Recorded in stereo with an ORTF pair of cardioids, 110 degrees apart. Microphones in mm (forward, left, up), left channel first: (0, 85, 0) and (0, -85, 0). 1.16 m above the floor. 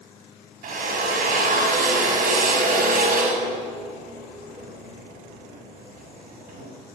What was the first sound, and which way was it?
A drill, 55° right.